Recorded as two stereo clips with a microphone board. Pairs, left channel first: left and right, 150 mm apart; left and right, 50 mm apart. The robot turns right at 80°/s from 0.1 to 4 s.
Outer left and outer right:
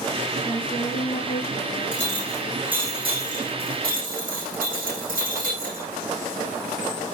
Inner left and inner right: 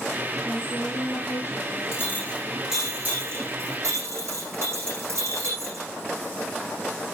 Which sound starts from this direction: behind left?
A clink, at 1.9 s.